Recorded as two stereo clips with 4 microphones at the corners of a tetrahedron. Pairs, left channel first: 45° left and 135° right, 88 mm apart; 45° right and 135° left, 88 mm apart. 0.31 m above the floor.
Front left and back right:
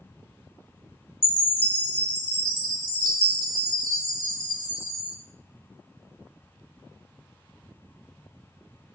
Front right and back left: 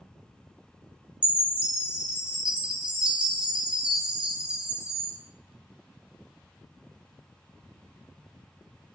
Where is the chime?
60° left, 0.8 m.